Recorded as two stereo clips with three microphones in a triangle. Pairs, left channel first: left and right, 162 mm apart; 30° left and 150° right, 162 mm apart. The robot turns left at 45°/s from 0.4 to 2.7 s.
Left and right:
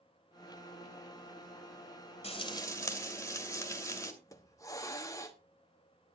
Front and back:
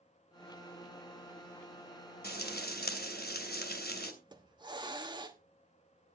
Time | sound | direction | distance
2.2 | frying | 40° left | 2 m
4.2 | a hiss | 155° left | 1.2 m